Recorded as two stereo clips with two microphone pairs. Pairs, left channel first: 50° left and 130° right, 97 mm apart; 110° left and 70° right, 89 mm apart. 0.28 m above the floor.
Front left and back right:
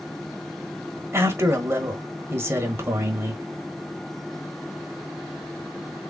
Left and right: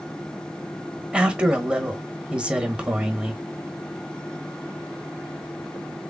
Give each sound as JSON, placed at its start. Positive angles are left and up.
{"t": 1.1, "sound": "a man speaking", "azimuth_deg": -125, "distance_m": 1.1}